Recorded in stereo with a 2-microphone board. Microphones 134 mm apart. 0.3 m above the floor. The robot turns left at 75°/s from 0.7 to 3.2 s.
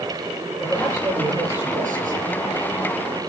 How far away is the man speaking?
About 8.5 m.